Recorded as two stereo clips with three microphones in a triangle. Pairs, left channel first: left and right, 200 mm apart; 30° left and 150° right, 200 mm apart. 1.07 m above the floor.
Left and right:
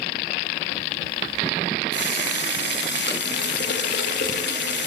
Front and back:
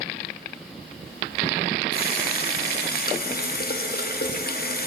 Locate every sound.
1.9 s a running tap: 65° left, 0.9 m